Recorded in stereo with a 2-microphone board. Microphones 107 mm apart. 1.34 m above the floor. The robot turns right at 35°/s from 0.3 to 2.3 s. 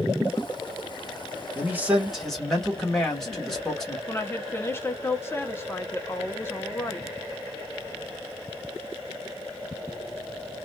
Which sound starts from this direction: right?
A man speaking, at 1.6 s.